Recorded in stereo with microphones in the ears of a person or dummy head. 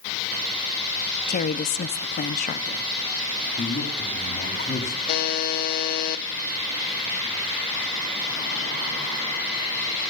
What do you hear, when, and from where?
1.3 s a woman speaking: 40° left (ahead or behind), 0.6 m
3.6 s a man speaking: 45° left (ahead or behind), 3 m
5.1 s a buzzer: 45° left (ahead or behind), 0.5 m